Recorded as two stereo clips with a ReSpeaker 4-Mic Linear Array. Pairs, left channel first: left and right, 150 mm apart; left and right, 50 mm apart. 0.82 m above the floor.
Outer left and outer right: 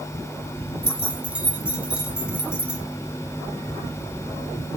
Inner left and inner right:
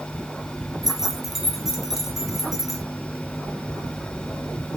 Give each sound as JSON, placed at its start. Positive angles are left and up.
{"t": 0.8, "sound": "keys jangling", "side_deg": -10, "distance_m": 0.7}